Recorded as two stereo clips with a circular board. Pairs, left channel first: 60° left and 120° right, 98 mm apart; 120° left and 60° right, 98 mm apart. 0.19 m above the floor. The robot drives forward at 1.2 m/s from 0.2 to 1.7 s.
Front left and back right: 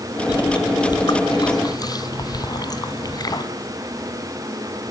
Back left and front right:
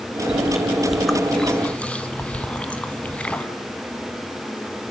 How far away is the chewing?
About 3 m.